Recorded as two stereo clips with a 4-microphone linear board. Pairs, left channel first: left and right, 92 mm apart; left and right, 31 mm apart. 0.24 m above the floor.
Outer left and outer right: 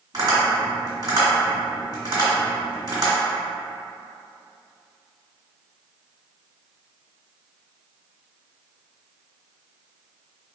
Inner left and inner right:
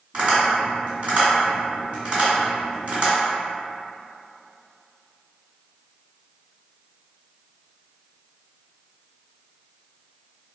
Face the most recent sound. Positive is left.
turn(degrees=-40)  # may be behind; listen again after turning